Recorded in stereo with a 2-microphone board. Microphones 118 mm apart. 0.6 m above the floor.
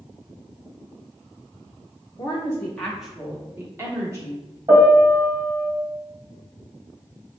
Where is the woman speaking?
30° left (ahead or behind), 0.8 m; by 4.6 s 30° right (ahead or behind), 1.6 m.